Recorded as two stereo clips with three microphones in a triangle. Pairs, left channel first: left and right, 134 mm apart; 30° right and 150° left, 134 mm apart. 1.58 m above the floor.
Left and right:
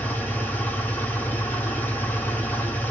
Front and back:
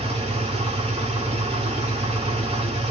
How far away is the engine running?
About 1.2 m.